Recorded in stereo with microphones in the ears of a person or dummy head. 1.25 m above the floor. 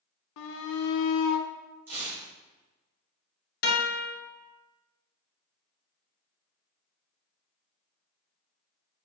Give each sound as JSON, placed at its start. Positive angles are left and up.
{"t": 0.4, "sound": "a shout", "side_deg": 70, "distance_m": 0.6}
{"t": 1.9, "sound": "tearing paper", "side_deg": -10, "distance_m": 1.4}
{"t": 3.6, "sound": "a guitar", "side_deg": 50, "distance_m": 1.0}